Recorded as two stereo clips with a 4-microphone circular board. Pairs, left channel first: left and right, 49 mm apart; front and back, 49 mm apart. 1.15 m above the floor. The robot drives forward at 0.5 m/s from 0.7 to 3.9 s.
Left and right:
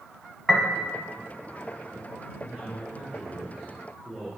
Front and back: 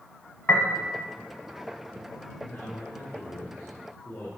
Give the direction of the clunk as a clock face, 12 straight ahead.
No clunk in this recording.